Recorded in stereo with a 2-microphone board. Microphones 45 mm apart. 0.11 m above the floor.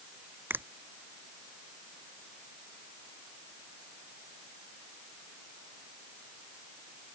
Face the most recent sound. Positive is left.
turn(degrees=-55)  # may be behind; listen again after turning